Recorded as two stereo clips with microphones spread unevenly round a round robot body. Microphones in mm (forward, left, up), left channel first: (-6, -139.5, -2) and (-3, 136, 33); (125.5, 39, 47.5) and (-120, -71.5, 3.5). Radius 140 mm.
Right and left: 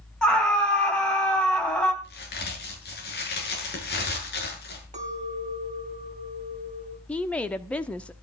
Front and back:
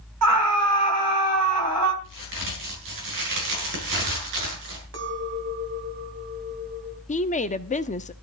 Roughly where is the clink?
Behind left.